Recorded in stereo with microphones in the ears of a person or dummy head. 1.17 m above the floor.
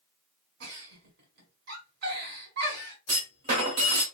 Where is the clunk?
30° right (ahead or behind), 1.1 m.